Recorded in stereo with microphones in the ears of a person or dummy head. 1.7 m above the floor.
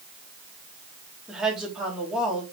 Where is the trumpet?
No trumpet in this recording.